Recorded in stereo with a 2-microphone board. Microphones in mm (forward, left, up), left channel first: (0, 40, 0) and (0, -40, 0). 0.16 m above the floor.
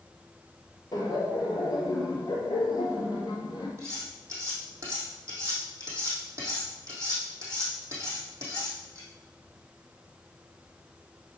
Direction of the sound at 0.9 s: 50° left (ahead or behind).